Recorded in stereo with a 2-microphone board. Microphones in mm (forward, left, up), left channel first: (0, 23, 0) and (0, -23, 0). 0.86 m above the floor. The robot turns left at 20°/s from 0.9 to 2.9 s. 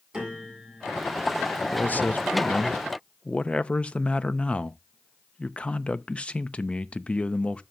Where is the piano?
15° right (ahead or behind), 7 m; by 1.2 s 20° right (ahead or behind), 7 m.